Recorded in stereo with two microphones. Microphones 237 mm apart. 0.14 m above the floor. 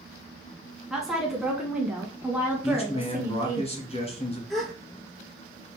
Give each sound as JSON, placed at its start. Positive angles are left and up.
{"t": 0.9, "sound": "a woman speaking", "side_deg": 0, "distance_m": 1.4}
{"t": 2.6, "sound": "a man speaking", "side_deg": 25, "distance_m": 1.6}
{"t": 4.5, "sound": "a gasp", "side_deg": 0, "distance_m": 1.1}